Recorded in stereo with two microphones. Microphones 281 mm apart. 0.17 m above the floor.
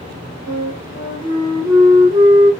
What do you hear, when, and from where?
0.5 s a flute: 15° right (ahead or behind), 1.8 m